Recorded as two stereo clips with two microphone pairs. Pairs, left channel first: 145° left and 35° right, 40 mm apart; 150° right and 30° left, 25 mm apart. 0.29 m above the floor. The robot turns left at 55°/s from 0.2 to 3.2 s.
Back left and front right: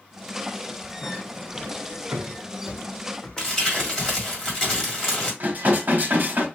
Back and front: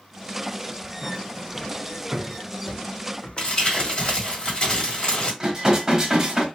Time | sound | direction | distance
1.0 | footsteps | 60° left | 1.2 m
3.4 | crumpling | 150° right | 1.7 m
5.4 | dishes clattering | 35° right | 1.2 m